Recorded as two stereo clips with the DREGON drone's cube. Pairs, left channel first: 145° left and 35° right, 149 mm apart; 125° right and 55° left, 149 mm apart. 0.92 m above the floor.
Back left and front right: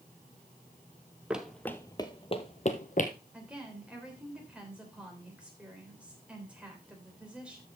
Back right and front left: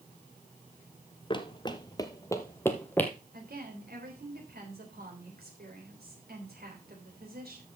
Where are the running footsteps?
110° right, 1.0 m; by 3.1 s 160° left, 1.6 m.